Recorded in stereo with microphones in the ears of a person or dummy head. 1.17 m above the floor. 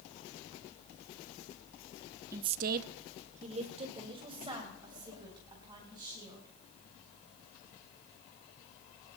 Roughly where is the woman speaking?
Centre.